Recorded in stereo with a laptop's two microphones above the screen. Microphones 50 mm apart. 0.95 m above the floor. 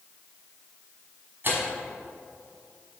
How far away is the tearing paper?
About 1.3 m.